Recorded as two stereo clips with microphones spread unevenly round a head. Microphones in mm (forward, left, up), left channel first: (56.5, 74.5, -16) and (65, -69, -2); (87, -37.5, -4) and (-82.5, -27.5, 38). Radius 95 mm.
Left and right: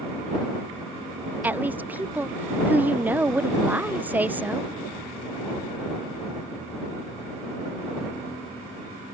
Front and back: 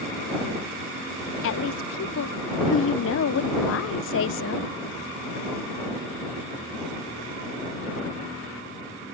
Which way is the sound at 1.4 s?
10° right.